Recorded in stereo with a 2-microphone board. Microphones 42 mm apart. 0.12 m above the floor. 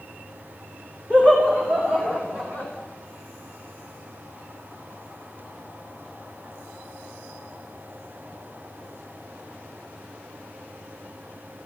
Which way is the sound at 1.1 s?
35° right (ahead or behind).